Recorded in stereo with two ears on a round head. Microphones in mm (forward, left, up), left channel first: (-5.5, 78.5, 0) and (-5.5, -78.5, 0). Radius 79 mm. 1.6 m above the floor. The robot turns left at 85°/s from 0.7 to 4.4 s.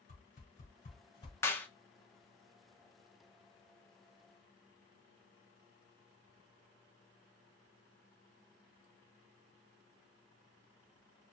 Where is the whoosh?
50° left (ahead or behind), 2 m; by 1.3 s 25° left (ahead or behind), 2 m.